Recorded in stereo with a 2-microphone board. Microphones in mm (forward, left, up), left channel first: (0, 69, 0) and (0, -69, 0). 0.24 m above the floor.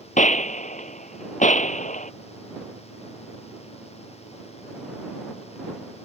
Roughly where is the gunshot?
Left.